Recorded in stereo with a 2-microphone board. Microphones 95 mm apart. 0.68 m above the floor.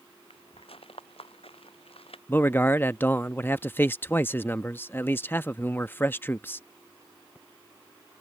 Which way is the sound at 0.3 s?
80° left.